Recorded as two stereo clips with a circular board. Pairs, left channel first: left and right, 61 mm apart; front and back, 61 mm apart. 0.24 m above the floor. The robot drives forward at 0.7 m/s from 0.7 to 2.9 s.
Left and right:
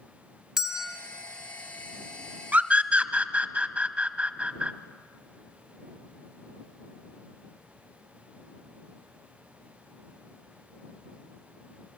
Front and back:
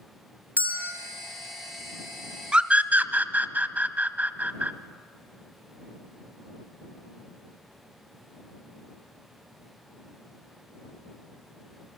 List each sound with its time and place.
0.6 s a bell: 165° right, 1.8 m; by 0.9 s 170° right, 1.9 m
2.5 s a scream: 125° right, 1.0 m; by 4.7 s 140° right, 1.1 m